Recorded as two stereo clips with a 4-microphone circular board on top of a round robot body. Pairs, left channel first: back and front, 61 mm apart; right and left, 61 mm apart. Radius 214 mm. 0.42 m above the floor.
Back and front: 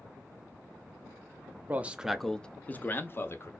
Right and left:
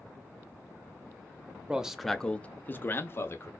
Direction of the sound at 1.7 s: 30° left.